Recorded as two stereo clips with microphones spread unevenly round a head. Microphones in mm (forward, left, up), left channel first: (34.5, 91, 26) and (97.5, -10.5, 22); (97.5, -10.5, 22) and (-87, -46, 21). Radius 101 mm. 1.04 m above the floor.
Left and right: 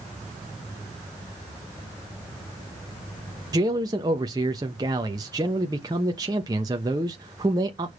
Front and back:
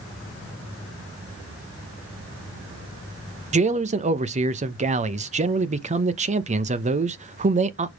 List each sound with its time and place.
3.5 s a man speaking: 120° right, 1.0 m